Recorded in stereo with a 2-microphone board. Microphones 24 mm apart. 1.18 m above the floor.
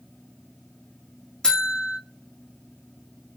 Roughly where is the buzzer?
Left.